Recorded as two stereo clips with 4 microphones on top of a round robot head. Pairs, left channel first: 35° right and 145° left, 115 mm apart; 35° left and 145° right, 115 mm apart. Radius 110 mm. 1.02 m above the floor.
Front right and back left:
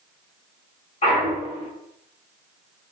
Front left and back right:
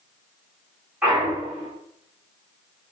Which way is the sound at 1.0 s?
70° right.